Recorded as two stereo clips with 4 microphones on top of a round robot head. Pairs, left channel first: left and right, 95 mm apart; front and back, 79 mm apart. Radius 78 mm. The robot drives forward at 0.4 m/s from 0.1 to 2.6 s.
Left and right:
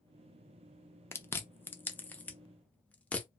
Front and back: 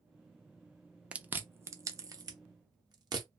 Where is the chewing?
120° left, 0.5 m; by 3.3 s 165° left, 0.9 m.